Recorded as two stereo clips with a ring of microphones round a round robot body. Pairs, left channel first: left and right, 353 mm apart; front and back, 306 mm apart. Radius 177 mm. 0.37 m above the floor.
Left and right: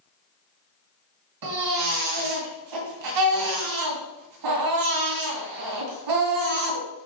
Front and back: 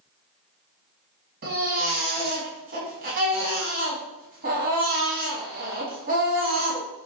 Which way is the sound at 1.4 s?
115° right.